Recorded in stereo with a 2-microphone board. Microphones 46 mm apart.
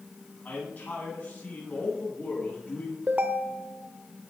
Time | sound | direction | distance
0.5 | a man speaking | 35° left (ahead or behind) | 9 m
3.1 | a ringtone | 35° right (ahead or behind) | 1.2 m